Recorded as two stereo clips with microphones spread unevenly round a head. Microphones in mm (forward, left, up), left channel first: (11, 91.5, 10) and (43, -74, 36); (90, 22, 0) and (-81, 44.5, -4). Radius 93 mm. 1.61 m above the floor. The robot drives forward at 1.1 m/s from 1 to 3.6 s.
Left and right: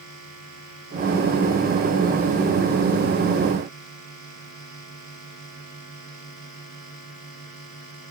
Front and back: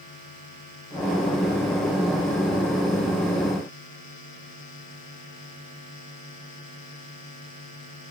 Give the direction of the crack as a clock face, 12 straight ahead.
No crack in this recording.